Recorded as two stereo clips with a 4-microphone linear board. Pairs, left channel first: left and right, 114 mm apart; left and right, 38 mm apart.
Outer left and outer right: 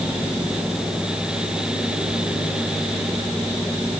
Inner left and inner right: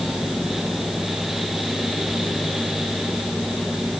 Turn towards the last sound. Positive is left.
No sound to turn to.